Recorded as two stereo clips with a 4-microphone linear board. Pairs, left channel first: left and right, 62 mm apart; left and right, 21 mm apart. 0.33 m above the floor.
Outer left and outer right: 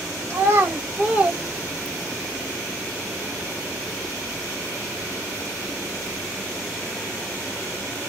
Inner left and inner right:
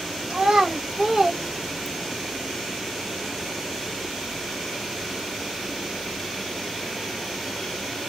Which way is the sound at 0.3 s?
35° right (ahead or behind).